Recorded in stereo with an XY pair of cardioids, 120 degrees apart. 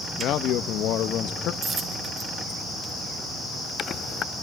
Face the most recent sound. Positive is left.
turn(degrees=-45)